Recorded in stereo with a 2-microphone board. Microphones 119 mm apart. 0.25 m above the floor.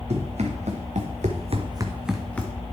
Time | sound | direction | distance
0.1 | running footsteps | 65° right (ahead or behind) | 2 m